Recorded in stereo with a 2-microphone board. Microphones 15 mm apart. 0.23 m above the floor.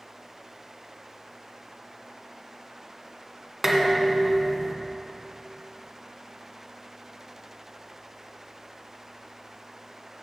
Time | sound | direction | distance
3.6 | dishes clattering | 10° right (ahead or behind) | 1.5 m